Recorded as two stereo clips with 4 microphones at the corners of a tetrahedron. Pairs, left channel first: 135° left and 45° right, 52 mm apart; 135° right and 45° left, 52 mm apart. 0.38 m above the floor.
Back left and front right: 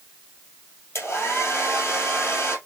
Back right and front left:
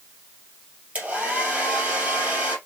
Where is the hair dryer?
110° left, 2.5 m.